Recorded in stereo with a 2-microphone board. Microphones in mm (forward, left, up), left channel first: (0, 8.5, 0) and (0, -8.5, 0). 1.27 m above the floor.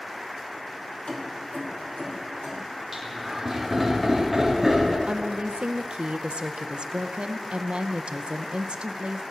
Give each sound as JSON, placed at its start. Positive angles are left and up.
{"t": 1.1, "sound": "keys jangling", "side_deg": 80, "distance_m": 2.0}
{"t": 2.9, "sound": "laughter", "side_deg": -5, "distance_m": 3.0}
{"t": 5.1, "sound": "a woman speaking", "side_deg": -80, "distance_m": 0.6}